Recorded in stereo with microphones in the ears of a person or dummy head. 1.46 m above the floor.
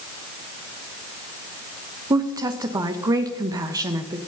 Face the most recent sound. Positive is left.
turn(degrees=-15)  # may be behind; listen again after turning